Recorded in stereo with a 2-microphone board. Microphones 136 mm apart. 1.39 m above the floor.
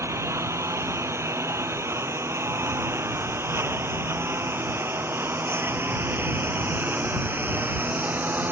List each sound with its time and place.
0.0 s a lawn mower: 20° right (ahead or behind); by 8.5 s 15° right (ahead or behind)